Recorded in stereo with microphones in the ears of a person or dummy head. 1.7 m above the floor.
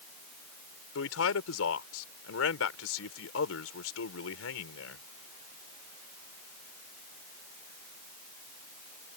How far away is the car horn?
I don't hear a car horn.